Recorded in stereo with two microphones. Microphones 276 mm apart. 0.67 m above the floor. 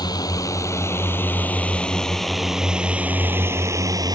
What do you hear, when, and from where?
0.0 s a drone: 15° left (ahead or behind); by 4.2 s 15° right (ahead or behind)